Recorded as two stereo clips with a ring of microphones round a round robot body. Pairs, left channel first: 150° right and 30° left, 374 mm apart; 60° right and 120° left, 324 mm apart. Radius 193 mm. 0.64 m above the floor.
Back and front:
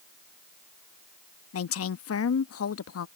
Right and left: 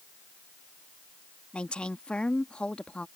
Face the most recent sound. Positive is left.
turn(degrees=-145)